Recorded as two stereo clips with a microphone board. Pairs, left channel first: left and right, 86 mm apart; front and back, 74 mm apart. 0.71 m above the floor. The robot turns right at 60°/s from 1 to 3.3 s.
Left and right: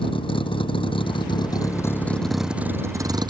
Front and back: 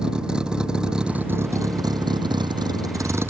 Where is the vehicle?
100° left; by 3.3 s 120° right.